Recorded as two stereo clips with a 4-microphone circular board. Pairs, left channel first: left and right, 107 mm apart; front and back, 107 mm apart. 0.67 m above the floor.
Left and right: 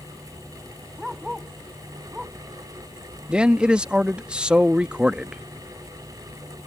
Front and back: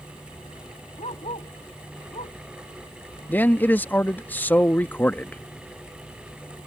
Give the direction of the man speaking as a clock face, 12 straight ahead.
1 o'clock.